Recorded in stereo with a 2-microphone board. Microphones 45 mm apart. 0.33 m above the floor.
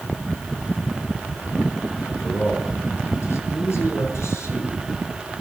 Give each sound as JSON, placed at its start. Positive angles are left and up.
{"t": 2.0, "sound": "a man speaking", "side_deg": 65, "distance_m": 5.0}